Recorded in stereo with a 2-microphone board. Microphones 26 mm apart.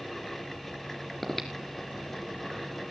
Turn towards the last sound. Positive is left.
turn(degrees=10)  # may be behind; listen again after turning